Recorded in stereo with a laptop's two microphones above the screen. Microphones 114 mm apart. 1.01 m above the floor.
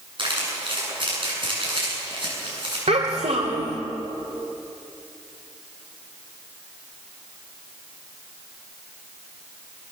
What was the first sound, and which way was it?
Crumpling, 45° right (ahead or behind).